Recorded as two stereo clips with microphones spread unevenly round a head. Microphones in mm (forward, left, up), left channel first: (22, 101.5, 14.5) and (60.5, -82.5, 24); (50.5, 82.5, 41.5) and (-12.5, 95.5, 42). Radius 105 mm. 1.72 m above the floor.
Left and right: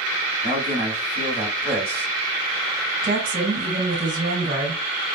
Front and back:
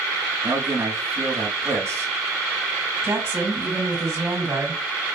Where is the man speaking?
145° right, 1.3 m.